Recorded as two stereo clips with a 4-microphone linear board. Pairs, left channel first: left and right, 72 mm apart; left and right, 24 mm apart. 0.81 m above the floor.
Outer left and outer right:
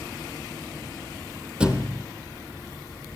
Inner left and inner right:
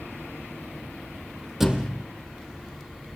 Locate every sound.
1.6 s a thud: 10° right (ahead or behind), 3 m